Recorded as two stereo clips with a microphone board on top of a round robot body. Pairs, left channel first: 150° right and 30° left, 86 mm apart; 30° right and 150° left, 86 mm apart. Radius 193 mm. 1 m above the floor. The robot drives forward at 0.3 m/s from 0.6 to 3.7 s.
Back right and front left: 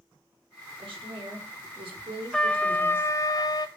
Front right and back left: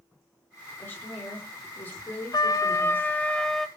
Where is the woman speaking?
35° left, 2.5 m; by 3.1 s 45° left, 2 m.